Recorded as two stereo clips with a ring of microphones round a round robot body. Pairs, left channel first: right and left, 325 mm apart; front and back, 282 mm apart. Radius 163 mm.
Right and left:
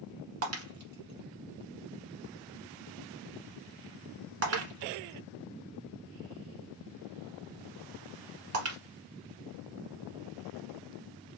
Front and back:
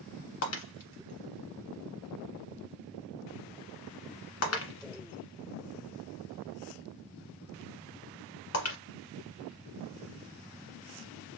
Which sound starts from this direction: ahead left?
Breaking glass, at 0.4 s.